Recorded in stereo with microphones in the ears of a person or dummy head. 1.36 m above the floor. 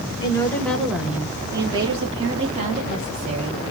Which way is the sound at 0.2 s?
25° left (ahead or behind).